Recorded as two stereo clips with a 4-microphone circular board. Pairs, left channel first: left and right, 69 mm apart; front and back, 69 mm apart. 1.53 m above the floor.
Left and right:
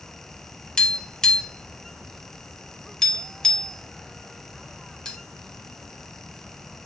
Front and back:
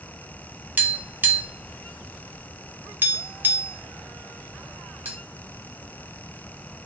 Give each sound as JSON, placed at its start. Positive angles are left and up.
{"t": 0.8, "sound": "tapping", "azimuth_deg": 160, "distance_m": 0.7}